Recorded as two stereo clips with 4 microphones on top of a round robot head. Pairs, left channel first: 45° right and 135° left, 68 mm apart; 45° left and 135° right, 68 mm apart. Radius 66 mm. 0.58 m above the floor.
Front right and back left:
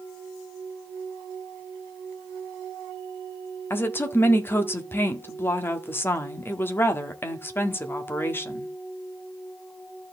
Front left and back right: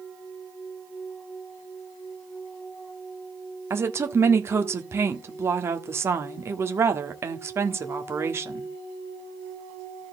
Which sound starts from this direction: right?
A woman speaking, at 3.7 s.